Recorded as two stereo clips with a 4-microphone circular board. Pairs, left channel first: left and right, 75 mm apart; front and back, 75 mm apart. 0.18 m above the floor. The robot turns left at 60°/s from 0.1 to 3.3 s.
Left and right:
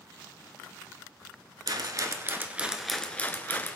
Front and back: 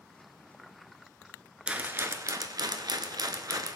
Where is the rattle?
105° right, 0.9 m; by 3.8 s 155° left, 0.9 m.